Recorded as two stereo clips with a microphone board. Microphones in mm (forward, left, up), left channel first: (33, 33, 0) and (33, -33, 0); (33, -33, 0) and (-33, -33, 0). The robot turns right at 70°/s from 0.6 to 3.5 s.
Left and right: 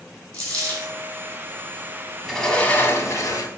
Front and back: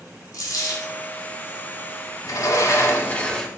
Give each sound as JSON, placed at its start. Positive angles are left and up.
{"t": 0.3, "sound": "a dropped coin", "azimuth_deg": 15, "distance_m": 1.8}
{"t": 2.2, "sound": "a sliding door", "azimuth_deg": -5, "distance_m": 0.8}